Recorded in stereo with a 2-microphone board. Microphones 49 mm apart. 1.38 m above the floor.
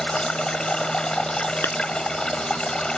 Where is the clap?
55° left (ahead or behind).